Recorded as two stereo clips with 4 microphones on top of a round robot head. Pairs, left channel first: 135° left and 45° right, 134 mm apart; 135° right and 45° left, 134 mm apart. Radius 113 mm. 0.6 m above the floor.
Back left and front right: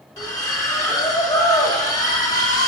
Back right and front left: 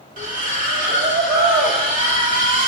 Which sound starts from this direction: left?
A splash, at 0.2 s.